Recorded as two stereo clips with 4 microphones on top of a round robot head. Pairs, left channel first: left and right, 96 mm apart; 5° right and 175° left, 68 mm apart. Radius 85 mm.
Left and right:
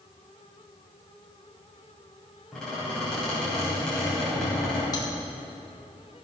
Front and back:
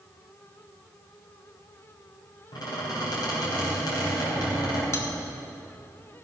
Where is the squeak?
5° left, 4 m.